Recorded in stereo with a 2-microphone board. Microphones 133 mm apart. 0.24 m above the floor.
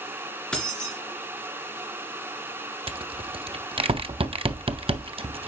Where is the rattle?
45° right (ahead or behind), 0.5 m.